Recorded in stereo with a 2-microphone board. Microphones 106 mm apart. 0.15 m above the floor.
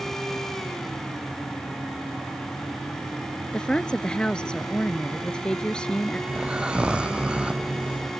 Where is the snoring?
10° right (ahead or behind).